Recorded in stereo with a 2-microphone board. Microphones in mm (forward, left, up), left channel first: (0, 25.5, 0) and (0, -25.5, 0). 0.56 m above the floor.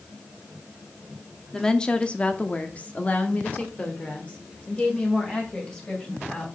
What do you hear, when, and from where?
1.5 s a woman speaking: 15° left (ahead or behind), 0.9 m; by 6.5 s 25° left (ahead or behind), 3 m